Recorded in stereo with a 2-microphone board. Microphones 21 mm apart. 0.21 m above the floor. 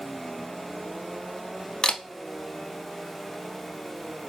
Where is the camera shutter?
45° left (ahead or behind), 0.5 m.